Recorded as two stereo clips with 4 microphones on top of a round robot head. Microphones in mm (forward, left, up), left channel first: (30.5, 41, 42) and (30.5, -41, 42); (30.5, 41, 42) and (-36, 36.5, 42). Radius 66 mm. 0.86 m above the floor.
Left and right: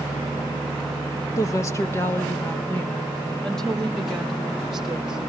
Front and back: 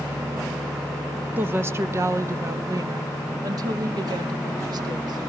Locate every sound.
1.4 s a woman speaking: 130° left, 1.2 m; by 5.2 s 175° right, 2.5 m